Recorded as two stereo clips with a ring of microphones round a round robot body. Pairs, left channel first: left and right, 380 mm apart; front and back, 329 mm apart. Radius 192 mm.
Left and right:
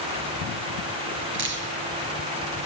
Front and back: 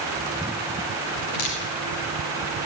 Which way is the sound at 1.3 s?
30° right.